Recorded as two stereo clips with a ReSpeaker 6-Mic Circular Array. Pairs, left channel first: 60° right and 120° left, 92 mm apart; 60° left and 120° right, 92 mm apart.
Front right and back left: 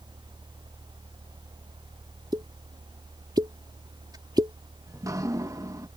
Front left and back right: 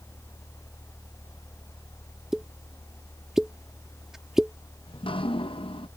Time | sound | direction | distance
2.3 | a pop | 155° left | ?
4.9 | dripping | 65° left | ?